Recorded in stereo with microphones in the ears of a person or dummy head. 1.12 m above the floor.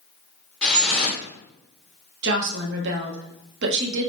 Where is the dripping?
5° left (ahead or behind), 0.8 m.